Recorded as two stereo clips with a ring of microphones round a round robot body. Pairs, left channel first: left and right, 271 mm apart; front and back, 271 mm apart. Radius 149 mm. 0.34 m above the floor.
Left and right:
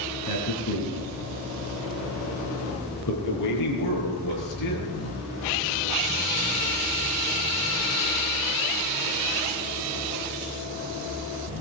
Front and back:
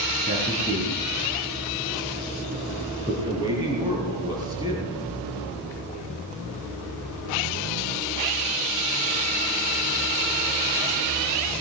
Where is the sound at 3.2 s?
105° left, 7 m.